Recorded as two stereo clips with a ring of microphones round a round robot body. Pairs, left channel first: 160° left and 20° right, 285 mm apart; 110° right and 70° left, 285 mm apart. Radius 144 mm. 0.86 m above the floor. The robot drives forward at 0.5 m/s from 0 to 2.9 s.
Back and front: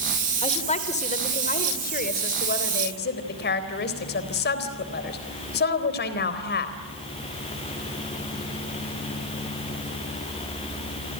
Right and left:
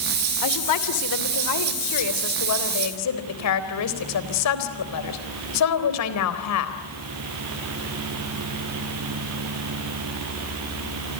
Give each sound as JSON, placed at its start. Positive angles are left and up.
{"t": 0.4, "sound": "a woman speaking", "azimuth_deg": -130, "distance_m": 3.0}